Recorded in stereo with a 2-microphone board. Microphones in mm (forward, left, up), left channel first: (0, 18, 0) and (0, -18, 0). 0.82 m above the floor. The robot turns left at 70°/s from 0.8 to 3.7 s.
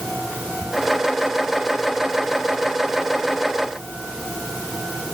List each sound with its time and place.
Only background noise.